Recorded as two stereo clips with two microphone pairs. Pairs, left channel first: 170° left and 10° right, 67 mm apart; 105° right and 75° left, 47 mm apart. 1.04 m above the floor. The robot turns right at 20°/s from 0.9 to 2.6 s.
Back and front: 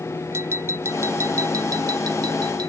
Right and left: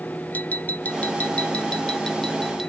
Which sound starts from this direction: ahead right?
Tapping, at 0.3 s.